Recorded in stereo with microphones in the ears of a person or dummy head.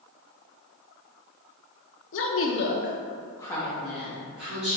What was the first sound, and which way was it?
A woman speaking, 60° left (ahead or behind).